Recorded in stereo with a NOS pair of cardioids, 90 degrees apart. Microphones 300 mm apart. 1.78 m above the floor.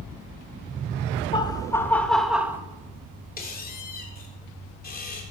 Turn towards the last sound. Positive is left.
turn(degrees=30)